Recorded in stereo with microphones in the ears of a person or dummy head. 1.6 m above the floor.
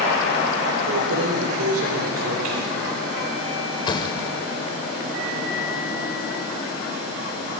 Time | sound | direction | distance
0.9 | keys jangling | 80° right | 3.5 m
3.9 | a thud | 25° left (ahead or behind) | 2.5 m